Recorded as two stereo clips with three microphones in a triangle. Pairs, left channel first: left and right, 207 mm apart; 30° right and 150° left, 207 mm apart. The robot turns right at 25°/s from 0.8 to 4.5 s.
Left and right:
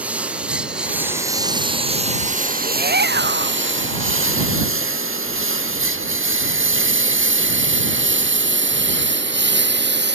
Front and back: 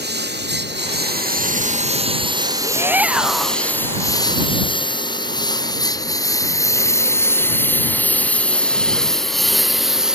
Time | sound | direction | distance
0.0 | a lawn mower | 175° right | ?
2.6 | a shout | 135° right | ?